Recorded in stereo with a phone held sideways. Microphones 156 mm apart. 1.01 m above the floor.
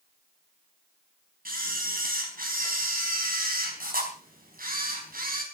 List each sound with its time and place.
1.4 s a camera shutter: 70° right (ahead or behind), 4.5 m